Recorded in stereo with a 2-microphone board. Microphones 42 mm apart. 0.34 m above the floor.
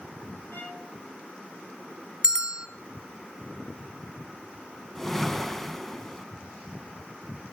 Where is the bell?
15° right (ahead or behind), 1.8 m.